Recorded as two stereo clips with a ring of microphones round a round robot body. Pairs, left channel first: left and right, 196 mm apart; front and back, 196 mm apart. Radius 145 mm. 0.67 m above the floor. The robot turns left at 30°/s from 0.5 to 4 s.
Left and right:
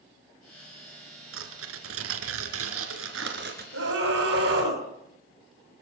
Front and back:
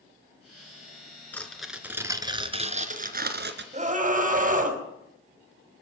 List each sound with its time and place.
1.3 s tearing paper: 80° right, 3 m; by 3.6 s 150° right, 3 m
3.7 s a scream: 125° right, 5.5 m; by 4.8 s 135° right, 5.5 m